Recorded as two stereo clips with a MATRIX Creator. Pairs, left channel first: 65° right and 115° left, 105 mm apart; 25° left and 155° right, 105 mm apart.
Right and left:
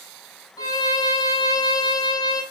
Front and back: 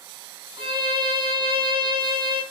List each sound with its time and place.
0.6 s a violin: 120° right, 0.9 m